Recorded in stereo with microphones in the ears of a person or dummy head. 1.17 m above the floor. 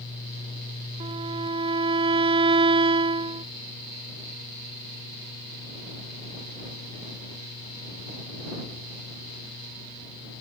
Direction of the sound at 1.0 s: 25° right (ahead or behind).